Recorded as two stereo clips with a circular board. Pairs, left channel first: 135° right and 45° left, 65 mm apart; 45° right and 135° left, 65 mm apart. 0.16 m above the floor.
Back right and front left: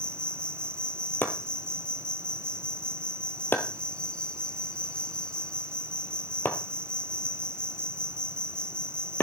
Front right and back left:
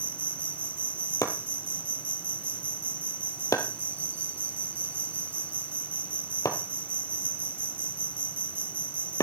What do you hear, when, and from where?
0.0 s an insect: 160° left, 0.8 m
1.2 s chopping: 80° right, 1.7 m